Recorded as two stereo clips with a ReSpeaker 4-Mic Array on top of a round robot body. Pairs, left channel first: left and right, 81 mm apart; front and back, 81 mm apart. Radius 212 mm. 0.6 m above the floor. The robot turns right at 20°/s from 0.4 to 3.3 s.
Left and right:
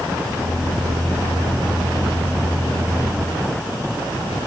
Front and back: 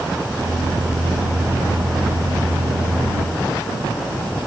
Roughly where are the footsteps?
I don't hear footsteps.